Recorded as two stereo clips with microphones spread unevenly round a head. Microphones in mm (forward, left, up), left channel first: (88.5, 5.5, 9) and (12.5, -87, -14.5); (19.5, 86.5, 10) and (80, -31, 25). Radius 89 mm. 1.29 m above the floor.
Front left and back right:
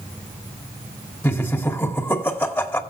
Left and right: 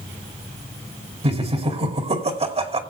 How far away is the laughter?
About 2.5 m.